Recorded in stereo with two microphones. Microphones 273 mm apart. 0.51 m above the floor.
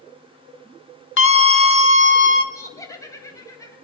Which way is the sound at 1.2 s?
45° left (ahead or behind).